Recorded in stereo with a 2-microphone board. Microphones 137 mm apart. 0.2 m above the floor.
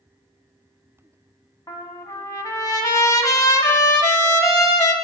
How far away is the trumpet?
About 1.0 m.